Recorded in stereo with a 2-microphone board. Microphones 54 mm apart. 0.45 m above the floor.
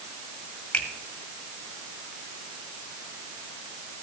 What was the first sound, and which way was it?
A finger snap, 20° left (ahead or behind).